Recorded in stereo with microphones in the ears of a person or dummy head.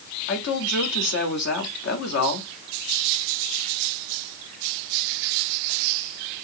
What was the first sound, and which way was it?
A woman speaking, 70° left (ahead or behind).